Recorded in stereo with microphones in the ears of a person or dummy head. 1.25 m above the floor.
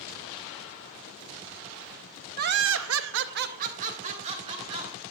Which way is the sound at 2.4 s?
45° right (ahead or behind).